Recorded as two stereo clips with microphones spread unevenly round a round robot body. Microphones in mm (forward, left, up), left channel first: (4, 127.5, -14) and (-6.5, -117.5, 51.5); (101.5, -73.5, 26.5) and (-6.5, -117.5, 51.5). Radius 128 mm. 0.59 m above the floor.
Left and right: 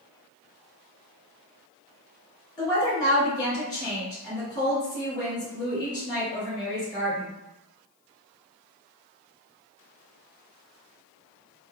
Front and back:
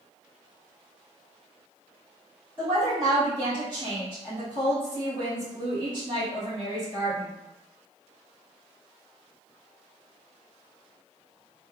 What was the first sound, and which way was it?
A woman speaking, 150° left.